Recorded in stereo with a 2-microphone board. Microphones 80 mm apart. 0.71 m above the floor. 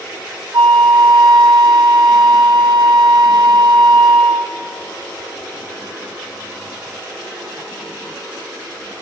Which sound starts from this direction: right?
A flute, at 0.5 s.